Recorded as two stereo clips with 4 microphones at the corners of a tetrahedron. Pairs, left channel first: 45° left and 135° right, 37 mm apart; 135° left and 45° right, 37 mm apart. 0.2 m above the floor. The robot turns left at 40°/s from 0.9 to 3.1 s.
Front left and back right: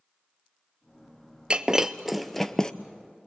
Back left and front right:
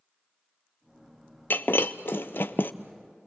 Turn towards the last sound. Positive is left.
turn(degrees=100)